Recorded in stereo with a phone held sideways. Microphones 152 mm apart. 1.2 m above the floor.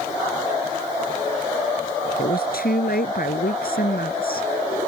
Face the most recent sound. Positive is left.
turn(degrees=80)